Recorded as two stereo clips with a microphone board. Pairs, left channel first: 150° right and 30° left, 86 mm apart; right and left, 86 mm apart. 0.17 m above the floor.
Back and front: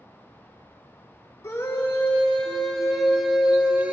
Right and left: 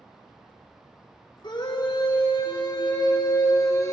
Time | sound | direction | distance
1.4 | a scream | 95° right | 3 m